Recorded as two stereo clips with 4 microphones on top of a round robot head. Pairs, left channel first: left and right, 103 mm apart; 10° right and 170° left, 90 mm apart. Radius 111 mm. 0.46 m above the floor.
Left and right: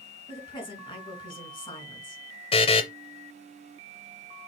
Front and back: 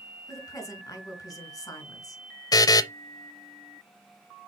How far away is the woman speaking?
About 4 m.